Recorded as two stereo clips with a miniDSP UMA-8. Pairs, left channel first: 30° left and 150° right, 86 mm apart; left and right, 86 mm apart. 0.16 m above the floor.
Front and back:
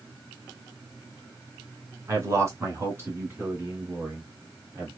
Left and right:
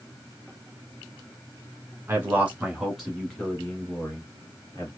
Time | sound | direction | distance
2.1 | a man speaking | 135° right | 1.3 m